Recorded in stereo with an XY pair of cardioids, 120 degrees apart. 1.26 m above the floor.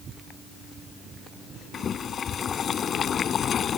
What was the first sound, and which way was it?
Boiling, 45° left.